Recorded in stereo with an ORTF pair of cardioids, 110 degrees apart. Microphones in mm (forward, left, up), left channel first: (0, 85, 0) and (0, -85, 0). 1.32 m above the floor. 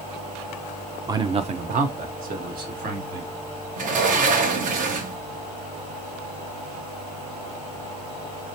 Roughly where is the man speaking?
Ahead.